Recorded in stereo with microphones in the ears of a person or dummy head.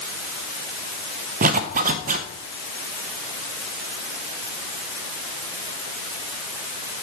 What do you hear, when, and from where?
1.4 s a zipper: 40° right (ahead or behind), 0.9 m